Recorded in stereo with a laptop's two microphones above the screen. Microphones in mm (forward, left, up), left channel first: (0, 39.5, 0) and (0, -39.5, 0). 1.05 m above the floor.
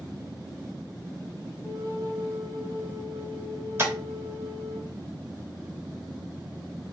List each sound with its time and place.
1.6 s a flute: 45° left (ahead or behind), 1.5 m
3.8 s tapping: 35° right (ahead or behind), 1.0 m